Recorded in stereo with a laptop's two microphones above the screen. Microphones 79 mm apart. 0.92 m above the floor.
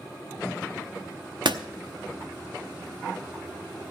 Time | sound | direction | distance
1.4 | a door slam | 75° right (ahead or behind) | 0.8 m